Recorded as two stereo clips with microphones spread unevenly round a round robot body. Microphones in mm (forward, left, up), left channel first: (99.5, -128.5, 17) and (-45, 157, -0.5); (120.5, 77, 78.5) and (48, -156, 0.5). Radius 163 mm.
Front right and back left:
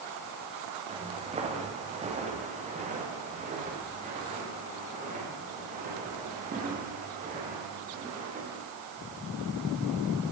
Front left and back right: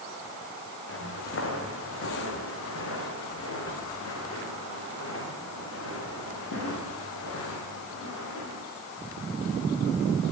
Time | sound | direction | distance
0.9 | footsteps | 45° left | 7 m